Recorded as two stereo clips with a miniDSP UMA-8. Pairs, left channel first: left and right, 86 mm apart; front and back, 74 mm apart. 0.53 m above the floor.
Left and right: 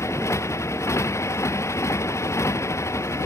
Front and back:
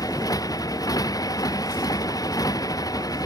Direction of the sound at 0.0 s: 35° left.